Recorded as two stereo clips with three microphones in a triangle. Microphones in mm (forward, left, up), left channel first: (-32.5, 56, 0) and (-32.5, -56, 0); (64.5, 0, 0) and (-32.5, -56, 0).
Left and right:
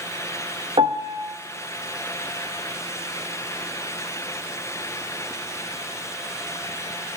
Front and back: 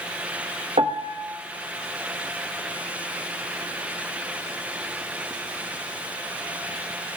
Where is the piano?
130° right, 0.9 m.